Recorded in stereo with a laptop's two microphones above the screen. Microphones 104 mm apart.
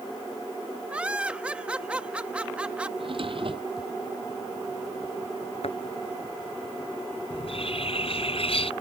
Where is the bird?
65° left (ahead or behind).